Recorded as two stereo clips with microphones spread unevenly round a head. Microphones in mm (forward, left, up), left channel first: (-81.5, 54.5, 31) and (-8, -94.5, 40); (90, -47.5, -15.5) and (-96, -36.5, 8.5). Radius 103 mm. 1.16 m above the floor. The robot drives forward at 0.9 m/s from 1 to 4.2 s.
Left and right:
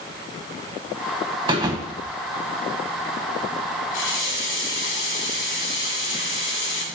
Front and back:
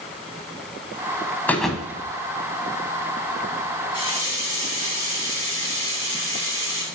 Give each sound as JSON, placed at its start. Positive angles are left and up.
{"t": 1.5, "sound": "a thud", "azimuth_deg": -90, "distance_m": 1.1}
{"t": 3.9, "sound": "a running tap", "azimuth_deg": 110, "distance_m": 2.0}